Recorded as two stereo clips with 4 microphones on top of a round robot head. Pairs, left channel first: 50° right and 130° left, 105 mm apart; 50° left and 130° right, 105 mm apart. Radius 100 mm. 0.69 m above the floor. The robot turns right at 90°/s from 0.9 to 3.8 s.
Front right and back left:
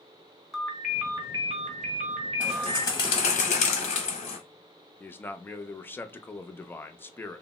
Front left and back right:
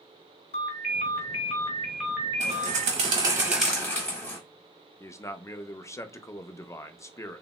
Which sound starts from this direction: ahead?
A man speaking, at 5.0 s.